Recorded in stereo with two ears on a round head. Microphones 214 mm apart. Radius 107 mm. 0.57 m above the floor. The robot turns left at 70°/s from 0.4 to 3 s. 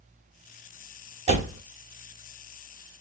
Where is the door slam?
25° right (ahead or behind), 1.0 m; by 1.6 s 40° right (ahead or behind), 1.0 m.